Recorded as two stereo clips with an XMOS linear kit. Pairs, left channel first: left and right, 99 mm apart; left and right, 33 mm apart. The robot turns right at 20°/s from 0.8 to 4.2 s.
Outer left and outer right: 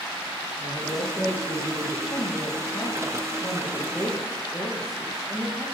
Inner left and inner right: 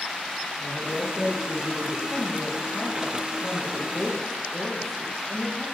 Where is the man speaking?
30° left (ahead or behind), 3 m; by 2.0 s 5° left (ahead or behind), 3 m.